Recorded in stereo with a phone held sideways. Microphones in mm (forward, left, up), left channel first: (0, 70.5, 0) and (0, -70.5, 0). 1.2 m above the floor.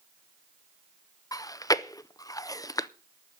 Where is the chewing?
25° left (ahead or behind), 0.6 m.